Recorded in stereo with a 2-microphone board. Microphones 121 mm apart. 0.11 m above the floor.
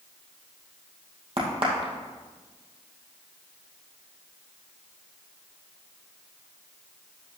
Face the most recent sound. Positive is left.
turn(degrees=-50)  # may be behind; listen again after turning